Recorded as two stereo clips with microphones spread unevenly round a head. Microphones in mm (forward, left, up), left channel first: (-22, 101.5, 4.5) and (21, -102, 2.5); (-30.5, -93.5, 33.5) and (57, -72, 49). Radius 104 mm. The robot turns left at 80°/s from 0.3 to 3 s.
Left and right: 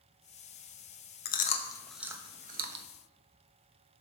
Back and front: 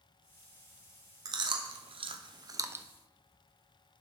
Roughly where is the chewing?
Ahead left.